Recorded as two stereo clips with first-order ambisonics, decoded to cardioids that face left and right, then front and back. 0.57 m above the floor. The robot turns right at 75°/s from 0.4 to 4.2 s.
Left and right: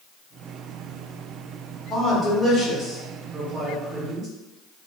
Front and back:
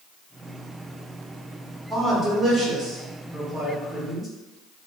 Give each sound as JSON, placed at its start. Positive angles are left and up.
{"t": 1.9, "sound": "a man speaking", "azimuth_deg": 90, "distance_m": 0.9}